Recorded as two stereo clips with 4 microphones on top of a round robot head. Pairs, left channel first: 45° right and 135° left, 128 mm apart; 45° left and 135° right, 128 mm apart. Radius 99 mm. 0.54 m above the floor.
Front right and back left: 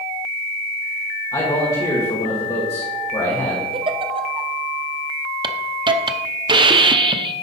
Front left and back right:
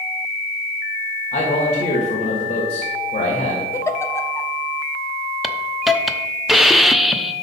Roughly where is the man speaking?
Ahead.